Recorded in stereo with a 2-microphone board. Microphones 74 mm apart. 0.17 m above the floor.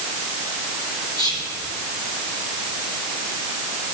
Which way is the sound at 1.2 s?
65° left (ahead or behind).